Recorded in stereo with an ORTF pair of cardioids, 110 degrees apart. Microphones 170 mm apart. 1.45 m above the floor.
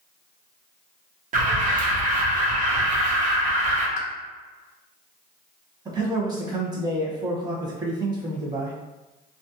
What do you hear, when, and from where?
1.3 s an alarm: 50° right, 0.9 m
4.0 s a pop: 45° left, 0.7 m
5.8 s a man speaking: 25° right, 1.1 m